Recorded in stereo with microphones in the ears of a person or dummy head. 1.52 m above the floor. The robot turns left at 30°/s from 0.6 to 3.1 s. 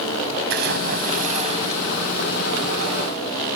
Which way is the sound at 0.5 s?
120° right.